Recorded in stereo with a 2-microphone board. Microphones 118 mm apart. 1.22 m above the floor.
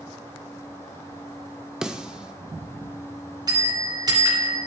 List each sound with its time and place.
1.8 s a snare drum: 5° right (ahead or behind), 1.0 m
3.5 s a bell: 35° right (ahead or behind), 3.5 m